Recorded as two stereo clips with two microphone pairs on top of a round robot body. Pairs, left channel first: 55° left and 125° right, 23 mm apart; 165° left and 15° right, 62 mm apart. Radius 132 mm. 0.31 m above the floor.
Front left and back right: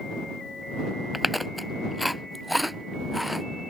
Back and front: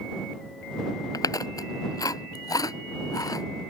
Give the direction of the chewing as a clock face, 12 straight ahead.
7 o'clock.